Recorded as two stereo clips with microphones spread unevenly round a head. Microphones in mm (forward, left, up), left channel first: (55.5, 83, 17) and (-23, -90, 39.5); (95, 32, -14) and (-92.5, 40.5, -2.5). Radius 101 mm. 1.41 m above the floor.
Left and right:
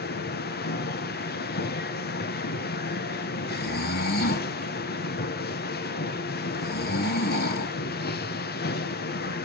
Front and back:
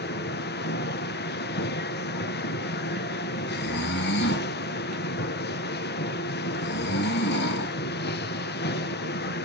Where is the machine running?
30° left, 1.2 m.